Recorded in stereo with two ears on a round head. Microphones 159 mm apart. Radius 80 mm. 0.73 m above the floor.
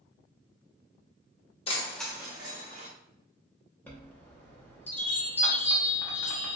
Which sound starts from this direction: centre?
A chime, at 3.9 s.